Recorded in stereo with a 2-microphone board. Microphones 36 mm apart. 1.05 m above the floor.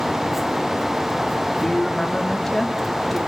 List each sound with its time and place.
1.6 s a woman speaking: 15° left (ahead or behind), 2 m; by 3.2 s centre (ahead or behind), 2.5 m